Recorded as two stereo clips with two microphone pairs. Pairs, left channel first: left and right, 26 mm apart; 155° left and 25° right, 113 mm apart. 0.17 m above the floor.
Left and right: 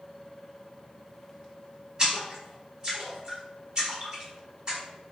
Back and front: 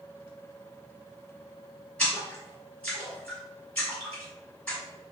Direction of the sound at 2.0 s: 130° right.